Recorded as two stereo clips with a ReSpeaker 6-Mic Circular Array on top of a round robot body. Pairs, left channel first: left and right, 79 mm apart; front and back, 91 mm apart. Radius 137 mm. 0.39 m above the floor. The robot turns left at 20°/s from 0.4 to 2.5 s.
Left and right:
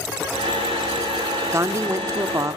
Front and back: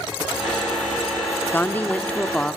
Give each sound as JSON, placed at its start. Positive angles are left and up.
{"t": 1.5, "sound": "a woman speaking", "azimuth_deg": -60, "distance_m": 1.3}